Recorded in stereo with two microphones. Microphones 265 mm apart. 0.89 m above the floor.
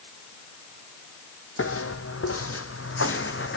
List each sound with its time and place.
1.6 s footsteps: 55° left (ahead or behind), 1.7 m; by 3.6 s 50° left (ahead or behind), 2 m